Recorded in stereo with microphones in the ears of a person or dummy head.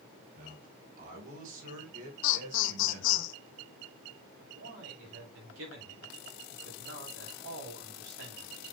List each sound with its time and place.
0.3 s a man speaking: 55° right (ahead or behind), 6.5 m; by 3.2 s 50° right (ahead or behind), 4.5 m
2.2 s laughter: 70° left (ahead or behind), 1.2 m
4.4 s a man speaking: 85° right, 7.5 m